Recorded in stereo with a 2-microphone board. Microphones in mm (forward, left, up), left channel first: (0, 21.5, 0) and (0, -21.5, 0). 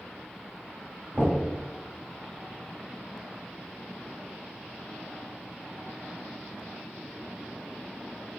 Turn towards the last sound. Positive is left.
turn(degrees=-30)  # may be behind; listen again after turning